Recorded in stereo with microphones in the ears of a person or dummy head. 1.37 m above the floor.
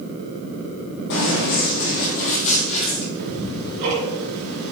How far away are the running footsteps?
About 3 m.